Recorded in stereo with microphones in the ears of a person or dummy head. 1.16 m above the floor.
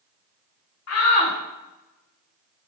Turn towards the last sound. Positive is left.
turn(degrees=75)  # may be behind; listen again after turning